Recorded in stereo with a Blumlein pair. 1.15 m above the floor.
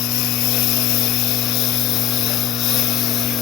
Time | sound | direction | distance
0.0 | a lawn mower | 40° left | ?